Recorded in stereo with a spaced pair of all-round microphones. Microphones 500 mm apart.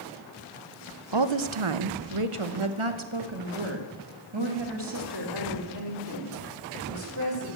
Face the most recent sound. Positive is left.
turn(degrees=-45)  # may be behind; listen again after turning